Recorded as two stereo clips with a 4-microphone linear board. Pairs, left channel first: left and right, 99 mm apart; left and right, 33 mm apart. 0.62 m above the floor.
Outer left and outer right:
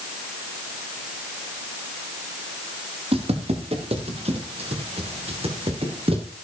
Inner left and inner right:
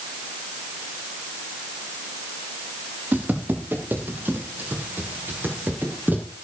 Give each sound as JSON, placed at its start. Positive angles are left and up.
{"t": 3.1, "sound": "footsteps", "side_deg": -75, "distance_m": 5.5}